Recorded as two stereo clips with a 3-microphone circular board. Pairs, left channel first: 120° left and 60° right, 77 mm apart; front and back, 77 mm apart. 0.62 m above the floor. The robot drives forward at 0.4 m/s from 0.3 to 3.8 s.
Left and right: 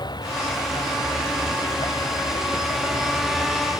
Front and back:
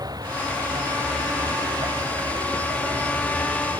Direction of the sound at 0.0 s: 145° left.